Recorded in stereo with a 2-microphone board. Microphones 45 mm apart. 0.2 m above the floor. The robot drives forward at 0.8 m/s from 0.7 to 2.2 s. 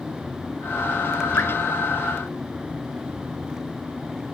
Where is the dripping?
60° left (ahead or behind), 0.6 m; by 1.5 s 55° left (ahead or behind), 0.6 m.